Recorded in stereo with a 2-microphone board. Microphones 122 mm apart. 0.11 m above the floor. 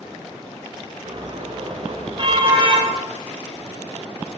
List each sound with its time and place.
1.1 s a car horn: 45° right (ahead or behind), 6.5 m; by 2.9 s 40° right (ahead or behind), 7 m